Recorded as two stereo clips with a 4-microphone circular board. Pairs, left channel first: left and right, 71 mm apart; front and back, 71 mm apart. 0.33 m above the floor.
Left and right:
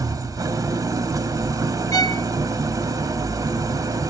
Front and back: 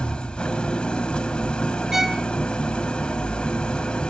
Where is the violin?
100° left, 0.9 m.